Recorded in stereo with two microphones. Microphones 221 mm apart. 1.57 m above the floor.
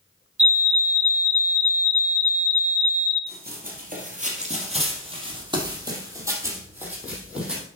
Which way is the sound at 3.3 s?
45° right (ahead or behind).